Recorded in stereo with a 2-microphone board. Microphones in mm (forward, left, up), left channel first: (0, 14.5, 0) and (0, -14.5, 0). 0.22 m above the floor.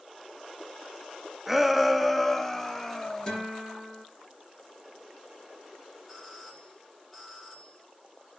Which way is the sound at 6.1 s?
15° left (ahead or behind).